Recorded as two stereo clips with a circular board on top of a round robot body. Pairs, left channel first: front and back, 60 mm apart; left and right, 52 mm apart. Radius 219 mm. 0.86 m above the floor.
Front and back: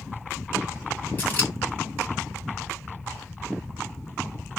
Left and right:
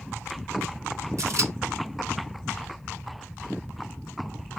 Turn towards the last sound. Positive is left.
turn(degrees=-65)